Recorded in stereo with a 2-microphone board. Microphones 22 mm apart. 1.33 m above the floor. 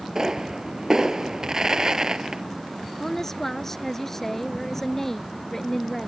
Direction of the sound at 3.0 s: 15° left (ahead or behind).